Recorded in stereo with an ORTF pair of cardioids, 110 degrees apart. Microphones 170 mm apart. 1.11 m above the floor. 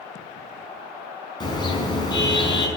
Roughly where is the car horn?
Ahead left.